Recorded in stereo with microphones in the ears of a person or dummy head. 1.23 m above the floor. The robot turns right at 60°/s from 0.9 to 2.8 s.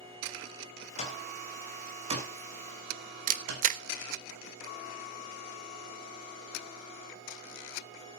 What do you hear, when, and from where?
1.0 s an alarm clock: 35° left (ahead or behind), 2.5 m; by 3.7 s 70° right (ahead or behind), 2.5 m
3.3 s a camera shutter: 40° right (ahead or behind), 0.5 m